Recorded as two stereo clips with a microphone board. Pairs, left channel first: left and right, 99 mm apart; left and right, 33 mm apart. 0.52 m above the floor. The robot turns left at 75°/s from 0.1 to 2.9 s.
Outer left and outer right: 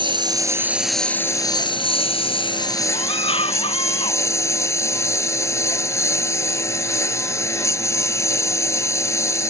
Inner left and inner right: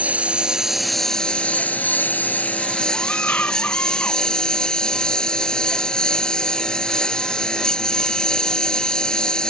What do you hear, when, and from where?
0.0 s a lawn mower: 120° right; by 9.5 s 30° left
2.9 s a scream: 85° left